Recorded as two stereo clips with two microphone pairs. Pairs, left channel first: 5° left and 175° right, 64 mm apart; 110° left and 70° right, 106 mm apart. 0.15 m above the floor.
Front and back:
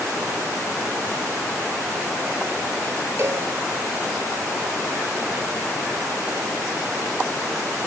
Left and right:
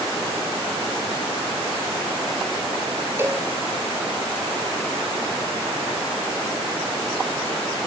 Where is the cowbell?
135° right, 2 m.